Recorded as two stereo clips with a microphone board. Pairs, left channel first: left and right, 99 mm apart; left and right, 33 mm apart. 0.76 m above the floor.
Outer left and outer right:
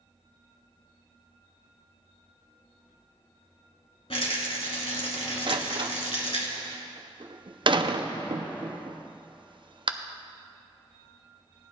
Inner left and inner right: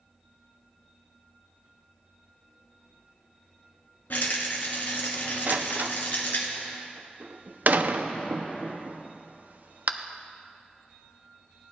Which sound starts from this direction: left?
A rattle, at 4.1 s.